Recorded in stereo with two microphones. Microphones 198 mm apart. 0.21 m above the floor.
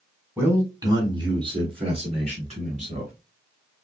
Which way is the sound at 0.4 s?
10° right (ahead or behind).